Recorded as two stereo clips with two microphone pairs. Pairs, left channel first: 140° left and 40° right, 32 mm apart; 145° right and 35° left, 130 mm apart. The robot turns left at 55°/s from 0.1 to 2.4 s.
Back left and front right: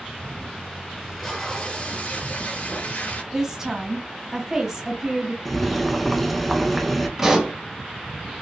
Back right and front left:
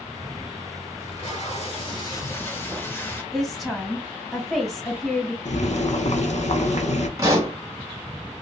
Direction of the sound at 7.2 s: 20° left.